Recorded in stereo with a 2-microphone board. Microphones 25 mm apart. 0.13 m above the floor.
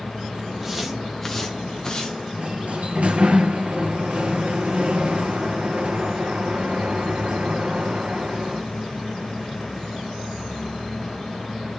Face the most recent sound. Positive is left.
turn(degrees=-55)  # may be behind; listen again after turning